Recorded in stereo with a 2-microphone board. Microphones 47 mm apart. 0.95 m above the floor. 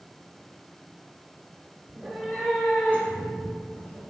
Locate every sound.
1.9 s a cat meowing: 15° right (ahead or behind), 0.8 m; by 4.0 s 40° left (ahead or behind), 3.5 m